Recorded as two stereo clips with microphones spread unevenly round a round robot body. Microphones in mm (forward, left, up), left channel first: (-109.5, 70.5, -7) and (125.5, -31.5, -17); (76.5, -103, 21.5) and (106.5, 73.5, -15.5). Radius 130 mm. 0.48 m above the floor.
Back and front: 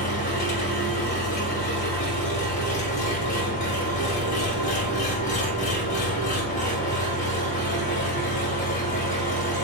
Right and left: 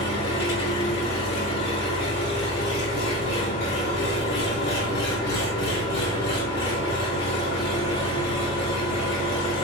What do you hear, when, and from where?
0.0 s an engine running: 140° right, 1.3 m